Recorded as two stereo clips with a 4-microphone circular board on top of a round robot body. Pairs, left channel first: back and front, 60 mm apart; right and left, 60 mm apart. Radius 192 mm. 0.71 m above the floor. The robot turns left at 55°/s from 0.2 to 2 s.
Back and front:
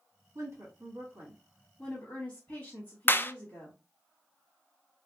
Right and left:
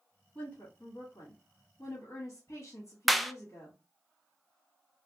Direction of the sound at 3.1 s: Straight behind.